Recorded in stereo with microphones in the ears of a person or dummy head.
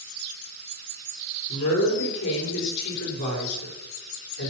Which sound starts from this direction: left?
A woman speaking, at 1.5 s.